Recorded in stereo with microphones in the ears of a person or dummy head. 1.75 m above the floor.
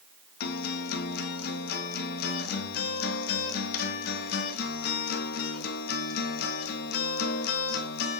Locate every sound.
0.4 s a guitar: 60° left (ahead or behind), 1.8 m